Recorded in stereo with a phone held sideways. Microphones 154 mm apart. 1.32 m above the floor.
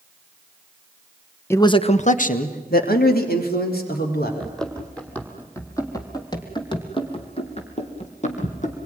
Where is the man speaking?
15° left (ahead or behind), 1.0 m; by 4.3 s 85° left, 4.5 m.